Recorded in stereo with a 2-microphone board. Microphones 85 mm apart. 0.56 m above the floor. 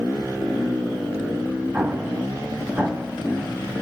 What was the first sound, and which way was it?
An explosion, 15° right (ahead or behind).